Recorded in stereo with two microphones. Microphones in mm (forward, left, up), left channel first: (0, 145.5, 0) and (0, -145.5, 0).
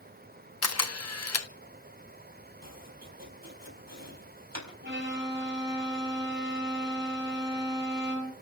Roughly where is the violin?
Right.